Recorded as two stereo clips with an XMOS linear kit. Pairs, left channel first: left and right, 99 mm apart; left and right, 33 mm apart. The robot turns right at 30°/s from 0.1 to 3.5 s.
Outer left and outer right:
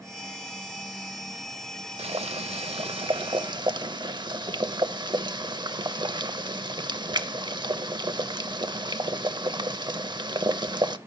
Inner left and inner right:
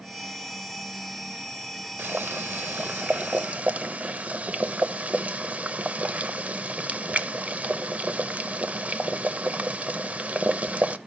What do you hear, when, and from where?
2.0 s boiling: 95° right, 0.6 m; by 11.0 s 50° right, 0.6 m